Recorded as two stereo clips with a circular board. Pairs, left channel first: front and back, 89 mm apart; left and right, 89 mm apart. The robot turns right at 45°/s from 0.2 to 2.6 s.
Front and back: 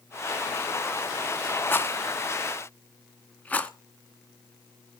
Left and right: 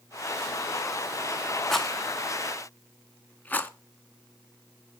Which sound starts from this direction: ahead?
A rattle, at 1.7 s.